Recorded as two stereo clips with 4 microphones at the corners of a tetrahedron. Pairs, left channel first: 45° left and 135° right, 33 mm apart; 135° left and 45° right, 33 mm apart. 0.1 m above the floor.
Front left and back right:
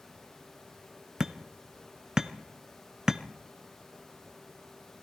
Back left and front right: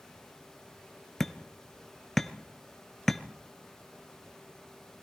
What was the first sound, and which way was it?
Hammering, 155° right.